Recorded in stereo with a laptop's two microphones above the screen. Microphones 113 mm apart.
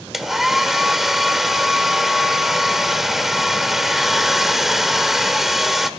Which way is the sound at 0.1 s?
5° right (ahead or behind).